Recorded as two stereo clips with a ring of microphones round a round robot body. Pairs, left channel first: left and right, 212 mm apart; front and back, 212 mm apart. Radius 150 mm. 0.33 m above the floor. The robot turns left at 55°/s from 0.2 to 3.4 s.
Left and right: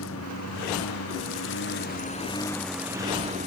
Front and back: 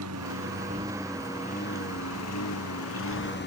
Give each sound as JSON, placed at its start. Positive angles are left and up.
{"t": 0.0, "sound": "a lawn mower", "azimuth_deg": 140}